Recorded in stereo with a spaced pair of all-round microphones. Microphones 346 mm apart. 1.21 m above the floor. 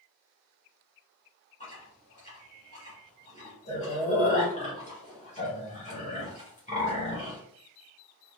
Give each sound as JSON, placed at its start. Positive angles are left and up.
{"t": 1.6, "sound": "chewing", "side_deg": 20, "distance_m": 2.5}